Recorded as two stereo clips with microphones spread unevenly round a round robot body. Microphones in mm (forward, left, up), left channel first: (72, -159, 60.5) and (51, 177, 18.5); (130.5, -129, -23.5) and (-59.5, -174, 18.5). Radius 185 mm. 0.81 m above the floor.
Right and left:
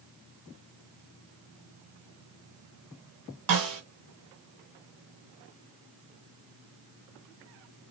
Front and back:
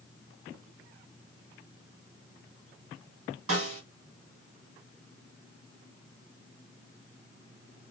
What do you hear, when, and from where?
3.5 s a snare drum: 140° left, 1.2 m